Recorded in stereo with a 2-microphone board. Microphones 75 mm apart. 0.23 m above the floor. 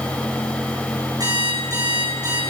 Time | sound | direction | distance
1.2 | an alarm clock | 55° right (ahead or behind) | 9.5 m